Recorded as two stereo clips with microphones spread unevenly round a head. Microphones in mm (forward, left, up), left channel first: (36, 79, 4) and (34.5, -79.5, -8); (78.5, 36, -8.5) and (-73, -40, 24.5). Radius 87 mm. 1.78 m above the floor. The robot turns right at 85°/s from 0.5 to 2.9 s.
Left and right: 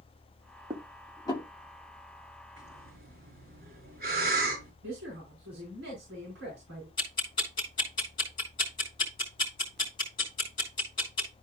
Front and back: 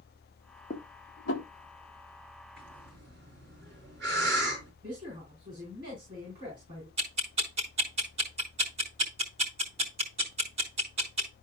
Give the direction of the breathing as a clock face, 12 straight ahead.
5 o'clock.